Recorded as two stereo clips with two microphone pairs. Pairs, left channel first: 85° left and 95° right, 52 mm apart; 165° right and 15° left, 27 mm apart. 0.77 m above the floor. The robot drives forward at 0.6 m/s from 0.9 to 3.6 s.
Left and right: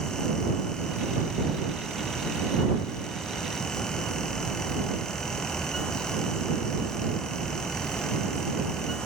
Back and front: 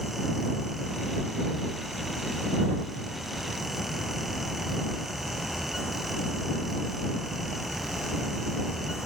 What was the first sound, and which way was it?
Only background noise.